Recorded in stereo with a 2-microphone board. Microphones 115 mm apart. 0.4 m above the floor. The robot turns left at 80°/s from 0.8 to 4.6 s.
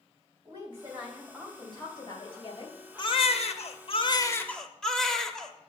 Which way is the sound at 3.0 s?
135° left.